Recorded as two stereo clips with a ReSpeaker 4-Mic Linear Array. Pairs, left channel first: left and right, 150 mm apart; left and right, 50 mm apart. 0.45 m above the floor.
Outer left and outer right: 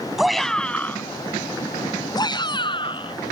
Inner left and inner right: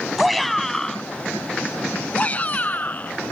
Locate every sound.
0.2 s a shout: centre (ahead or behind); by 3.1 s 35° left (ahead or behind)